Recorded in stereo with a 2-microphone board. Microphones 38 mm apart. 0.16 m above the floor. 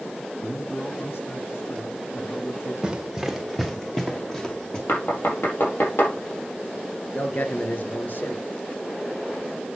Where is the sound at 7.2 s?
50° left (ahead or behind), 2.5 m.